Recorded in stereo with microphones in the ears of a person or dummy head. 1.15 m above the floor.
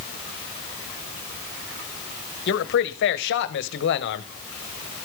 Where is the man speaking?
55° left (ahead or behind), 1.2 m.